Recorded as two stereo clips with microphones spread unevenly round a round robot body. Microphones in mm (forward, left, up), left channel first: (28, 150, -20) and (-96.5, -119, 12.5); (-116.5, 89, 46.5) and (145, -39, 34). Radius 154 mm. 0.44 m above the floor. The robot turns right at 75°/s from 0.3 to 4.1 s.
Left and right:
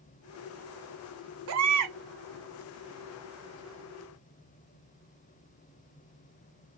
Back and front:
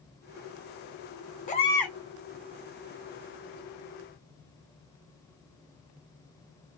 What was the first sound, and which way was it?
A baby crying, 145° right.